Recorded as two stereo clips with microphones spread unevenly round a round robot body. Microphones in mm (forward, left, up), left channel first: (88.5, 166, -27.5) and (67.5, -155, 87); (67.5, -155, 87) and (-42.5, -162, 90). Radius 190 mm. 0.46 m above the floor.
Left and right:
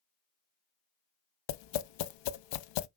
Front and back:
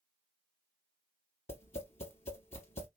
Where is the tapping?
65° left, 0.6 m.